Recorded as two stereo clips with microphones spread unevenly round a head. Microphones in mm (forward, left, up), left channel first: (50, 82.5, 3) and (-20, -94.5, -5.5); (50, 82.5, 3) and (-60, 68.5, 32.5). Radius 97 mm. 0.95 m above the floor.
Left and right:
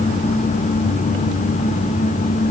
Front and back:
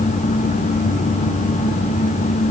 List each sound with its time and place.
Only background noise.